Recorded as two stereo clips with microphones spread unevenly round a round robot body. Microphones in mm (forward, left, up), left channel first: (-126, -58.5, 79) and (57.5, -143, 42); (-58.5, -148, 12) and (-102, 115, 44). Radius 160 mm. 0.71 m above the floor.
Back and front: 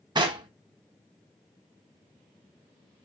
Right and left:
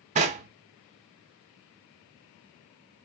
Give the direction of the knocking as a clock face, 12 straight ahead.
11 o'clock.